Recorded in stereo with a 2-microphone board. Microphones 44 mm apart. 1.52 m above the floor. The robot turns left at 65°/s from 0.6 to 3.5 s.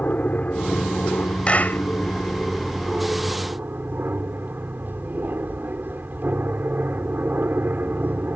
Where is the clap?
25° left (ahead or behind); by 1.8 s 50° left (ahead or behind).